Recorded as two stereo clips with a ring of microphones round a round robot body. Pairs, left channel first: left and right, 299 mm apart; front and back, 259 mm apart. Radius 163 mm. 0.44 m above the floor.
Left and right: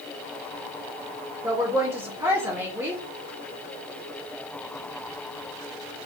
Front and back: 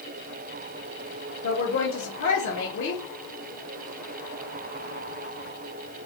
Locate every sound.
1.4 s a woman speaking: 10° right, 1.1 m